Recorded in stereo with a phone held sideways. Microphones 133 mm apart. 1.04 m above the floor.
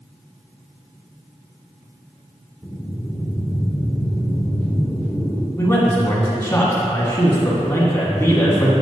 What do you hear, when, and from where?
2.6 s breathing: 5° left (ahead or behind), 0.9 m
5.6 s a man speaking: 25° left (ahead or behind), 1.6 m